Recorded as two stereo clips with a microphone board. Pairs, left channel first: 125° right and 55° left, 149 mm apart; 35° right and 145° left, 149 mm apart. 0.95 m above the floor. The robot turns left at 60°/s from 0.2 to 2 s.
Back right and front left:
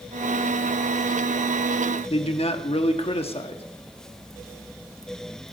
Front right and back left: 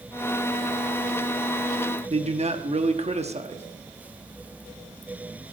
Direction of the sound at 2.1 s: 170° right.